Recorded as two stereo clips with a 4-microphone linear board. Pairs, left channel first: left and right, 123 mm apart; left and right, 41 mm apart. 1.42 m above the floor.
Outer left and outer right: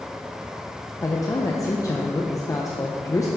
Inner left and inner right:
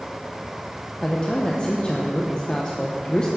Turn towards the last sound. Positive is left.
turn(degrees=25)  # may be behind; listen again after turning